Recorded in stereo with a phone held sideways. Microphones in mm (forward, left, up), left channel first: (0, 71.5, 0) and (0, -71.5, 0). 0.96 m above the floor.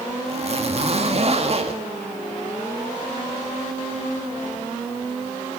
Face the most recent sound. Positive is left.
turn(degrees=-45)  # may be behind; listen again after turning